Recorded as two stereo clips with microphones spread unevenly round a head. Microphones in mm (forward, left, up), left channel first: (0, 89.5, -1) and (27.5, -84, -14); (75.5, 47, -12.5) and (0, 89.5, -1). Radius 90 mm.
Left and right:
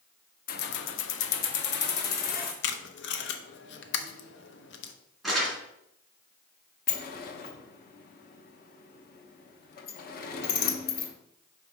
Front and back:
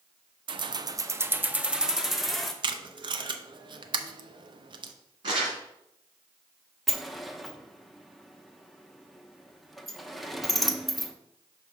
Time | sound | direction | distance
0.5 | keys jangling | 140° left | 0.5 m
2.6 | tape being pulled | 125° left | 0.7 m
5.2 | crumpling | 175° right | 2 m
6.9 | a sliding door | 60° left | 0.9 m